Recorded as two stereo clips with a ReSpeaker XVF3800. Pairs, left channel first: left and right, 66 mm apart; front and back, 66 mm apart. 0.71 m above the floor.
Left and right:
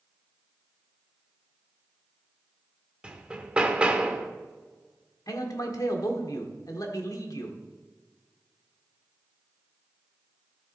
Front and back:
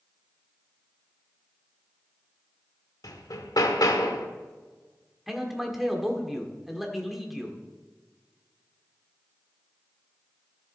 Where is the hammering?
15° right, 1.0 m.